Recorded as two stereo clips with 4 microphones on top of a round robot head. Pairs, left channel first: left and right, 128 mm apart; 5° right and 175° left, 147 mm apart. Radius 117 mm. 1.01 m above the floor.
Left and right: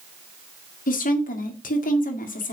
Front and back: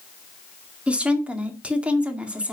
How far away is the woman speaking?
About 2 m.